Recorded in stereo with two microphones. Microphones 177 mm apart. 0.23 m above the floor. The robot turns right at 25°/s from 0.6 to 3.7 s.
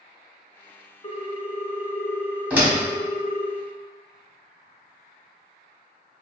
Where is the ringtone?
145° left, 0.6 m; by 3.5 s 155° right, 0.6 m.